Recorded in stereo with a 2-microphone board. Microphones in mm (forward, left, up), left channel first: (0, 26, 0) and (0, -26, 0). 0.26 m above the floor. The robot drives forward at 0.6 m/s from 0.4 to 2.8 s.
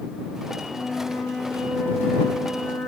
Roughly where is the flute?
Left.